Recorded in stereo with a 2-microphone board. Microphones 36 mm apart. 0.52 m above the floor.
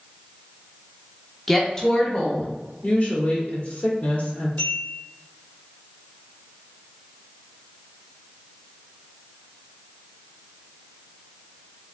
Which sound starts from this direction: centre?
A woman speaking, at 1.5 s.